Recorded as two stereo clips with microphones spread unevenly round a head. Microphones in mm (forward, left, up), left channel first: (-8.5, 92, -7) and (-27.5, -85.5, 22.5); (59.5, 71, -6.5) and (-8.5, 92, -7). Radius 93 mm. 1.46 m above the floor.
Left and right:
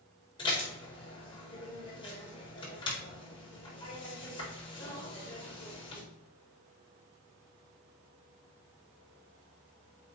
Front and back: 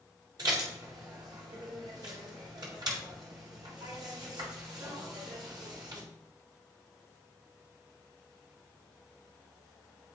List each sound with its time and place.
0.4 s dishes clattering: 150° left, 4 m